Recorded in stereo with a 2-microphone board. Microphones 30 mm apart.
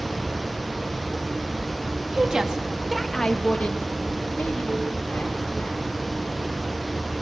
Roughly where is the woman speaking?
Right.